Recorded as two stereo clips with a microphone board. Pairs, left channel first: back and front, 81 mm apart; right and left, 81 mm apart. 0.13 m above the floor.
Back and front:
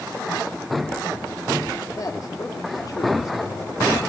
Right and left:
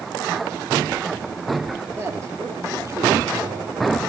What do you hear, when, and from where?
2.0 s a man speaking: 145° left, 3.5 m; by 3.9 s 130° left, 4.5 m